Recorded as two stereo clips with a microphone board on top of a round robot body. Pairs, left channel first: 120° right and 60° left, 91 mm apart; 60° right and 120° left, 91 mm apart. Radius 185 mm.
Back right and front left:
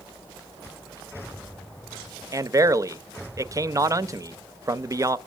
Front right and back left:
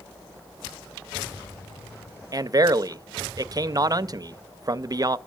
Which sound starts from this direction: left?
A man speaking, at 2.3 s.